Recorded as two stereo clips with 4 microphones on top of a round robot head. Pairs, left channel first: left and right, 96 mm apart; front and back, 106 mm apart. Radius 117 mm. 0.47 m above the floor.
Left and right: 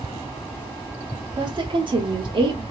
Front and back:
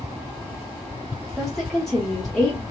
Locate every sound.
1.4 s a woman speaking: 85° right, 1.0 m